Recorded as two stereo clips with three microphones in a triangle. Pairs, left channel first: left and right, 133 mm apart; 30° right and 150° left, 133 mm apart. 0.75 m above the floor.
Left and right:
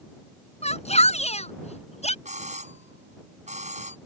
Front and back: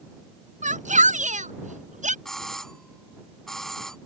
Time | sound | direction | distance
0.6 | a shout | 125° left | ?
2.2 | a doorbell | 120° right | ?